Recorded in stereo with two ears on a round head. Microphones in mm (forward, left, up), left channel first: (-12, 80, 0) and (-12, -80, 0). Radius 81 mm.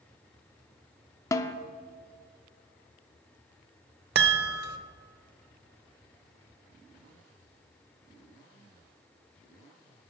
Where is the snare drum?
20° left (ahead or behind), 0.6 m.